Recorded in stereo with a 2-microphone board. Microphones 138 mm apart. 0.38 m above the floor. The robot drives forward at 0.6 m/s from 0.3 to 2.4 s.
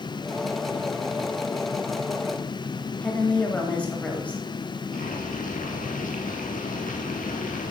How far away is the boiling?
About 2.5 m.